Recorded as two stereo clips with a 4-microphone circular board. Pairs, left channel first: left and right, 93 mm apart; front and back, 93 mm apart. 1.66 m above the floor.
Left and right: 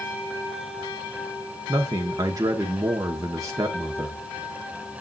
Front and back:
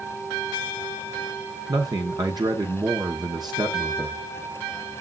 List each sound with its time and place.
1.7 s a man speaking: 140° right, 1.1 m